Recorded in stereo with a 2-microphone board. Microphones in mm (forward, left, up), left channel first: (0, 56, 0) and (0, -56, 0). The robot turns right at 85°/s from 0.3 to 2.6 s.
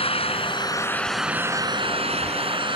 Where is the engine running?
105° left; by 2.8 s 60° right.